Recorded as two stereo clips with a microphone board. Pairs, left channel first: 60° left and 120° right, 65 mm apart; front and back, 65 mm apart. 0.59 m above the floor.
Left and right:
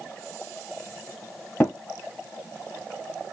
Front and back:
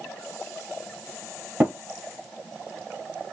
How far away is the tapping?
About 3 m.